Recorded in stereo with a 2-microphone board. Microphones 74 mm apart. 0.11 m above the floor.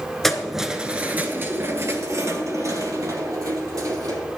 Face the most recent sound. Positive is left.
turn(degrees=-60)  # may be behind; listen again after turning